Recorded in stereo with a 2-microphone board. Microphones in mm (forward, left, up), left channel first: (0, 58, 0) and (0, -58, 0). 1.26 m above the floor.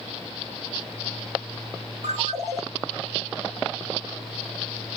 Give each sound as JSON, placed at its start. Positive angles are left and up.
{"t": 2.0, "sound": "a ringtone", "side_deg": -65, "distance_m": 2.5}